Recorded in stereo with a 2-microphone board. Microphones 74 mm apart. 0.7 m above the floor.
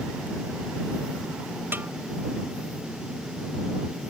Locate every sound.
1.7 s a snare drum: 30° right (ahead or behind)